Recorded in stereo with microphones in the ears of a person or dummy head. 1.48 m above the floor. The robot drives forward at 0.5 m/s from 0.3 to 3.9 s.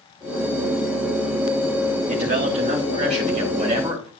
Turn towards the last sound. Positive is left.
turn(degrees=-30)  # may be behind; listen again after turning